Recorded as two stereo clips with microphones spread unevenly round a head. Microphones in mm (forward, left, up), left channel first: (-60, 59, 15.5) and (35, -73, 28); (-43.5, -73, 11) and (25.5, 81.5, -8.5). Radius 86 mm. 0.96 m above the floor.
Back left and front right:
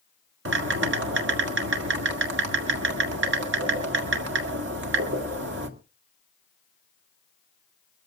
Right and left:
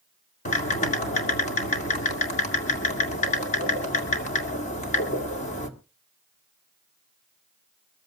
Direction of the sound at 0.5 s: 60° right.